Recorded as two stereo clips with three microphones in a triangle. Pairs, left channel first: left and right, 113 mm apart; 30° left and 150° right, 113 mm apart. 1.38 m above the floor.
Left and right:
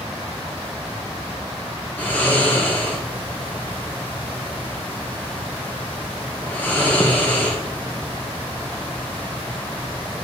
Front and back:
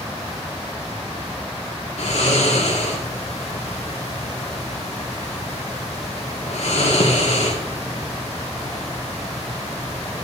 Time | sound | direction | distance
2.0 | snoring | 15° left | 1.6 m